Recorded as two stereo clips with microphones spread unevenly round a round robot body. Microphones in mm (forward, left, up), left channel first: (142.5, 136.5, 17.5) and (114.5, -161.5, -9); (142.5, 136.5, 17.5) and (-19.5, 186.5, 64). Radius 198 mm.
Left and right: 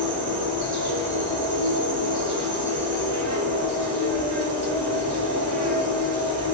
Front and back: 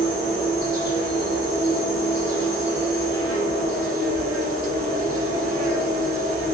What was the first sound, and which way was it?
An insect, 125° right.